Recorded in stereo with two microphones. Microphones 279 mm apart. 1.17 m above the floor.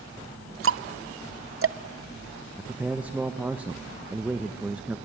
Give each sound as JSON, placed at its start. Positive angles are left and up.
{"t": 0.6, "sound": "ticking", "side_deg": -50, "distance_m": 0.6}
{"t": 2.6, "sound": "a man speaking", "side_deg": -5, "distance_m": 0.8}